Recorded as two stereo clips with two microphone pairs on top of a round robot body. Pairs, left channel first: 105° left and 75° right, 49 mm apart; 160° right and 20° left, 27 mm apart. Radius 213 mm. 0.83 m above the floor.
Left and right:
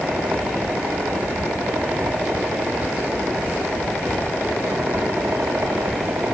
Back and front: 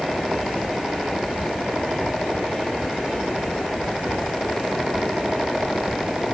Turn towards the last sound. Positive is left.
No sound to turn to.